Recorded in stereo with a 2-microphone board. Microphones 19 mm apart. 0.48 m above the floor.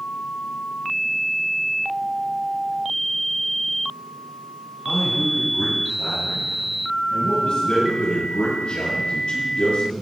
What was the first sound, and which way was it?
A man speaking, 75° left (ahead or behind).